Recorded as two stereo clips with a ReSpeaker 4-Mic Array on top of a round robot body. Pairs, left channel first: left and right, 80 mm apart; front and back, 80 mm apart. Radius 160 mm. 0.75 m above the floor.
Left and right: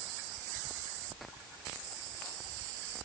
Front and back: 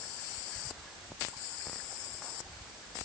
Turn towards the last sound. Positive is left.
No sound to turn to.